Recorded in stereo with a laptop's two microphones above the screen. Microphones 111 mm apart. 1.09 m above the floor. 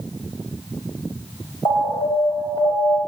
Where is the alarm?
45° left (ahead or behind), 3 m.